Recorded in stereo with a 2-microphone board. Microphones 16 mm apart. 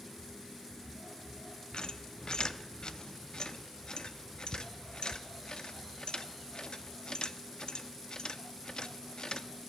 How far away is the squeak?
About 0.6 m.